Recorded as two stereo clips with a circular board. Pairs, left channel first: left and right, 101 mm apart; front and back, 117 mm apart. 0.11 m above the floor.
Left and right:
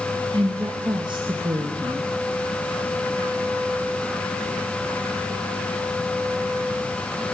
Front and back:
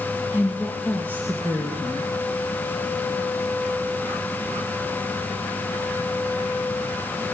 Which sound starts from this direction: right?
A woman speaking, at 0.3 s.